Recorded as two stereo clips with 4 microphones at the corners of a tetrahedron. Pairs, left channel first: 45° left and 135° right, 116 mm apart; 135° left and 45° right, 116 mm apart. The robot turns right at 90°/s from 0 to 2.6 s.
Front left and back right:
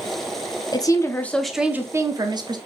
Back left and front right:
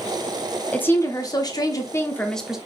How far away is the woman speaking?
About 0.7 m.